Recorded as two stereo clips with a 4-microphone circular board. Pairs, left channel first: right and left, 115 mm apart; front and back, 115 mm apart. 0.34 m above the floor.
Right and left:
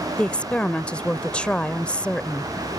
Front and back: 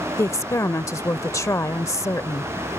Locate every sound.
0.2 s a woman speaking: 20° right